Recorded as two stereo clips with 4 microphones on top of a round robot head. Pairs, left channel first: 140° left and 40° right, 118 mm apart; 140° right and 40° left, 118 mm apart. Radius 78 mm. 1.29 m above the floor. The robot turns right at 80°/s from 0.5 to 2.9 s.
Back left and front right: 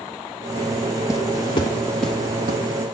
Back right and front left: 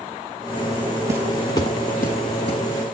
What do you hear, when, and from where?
1.1 s footsteps: 90° left, 1.4 m; by 2.6 s 85° right, 3 m